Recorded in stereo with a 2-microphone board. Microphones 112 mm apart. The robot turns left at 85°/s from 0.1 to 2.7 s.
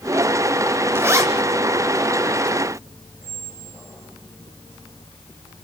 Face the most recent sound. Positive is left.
turn(degrees=-25)  # may be behind; listen again after turning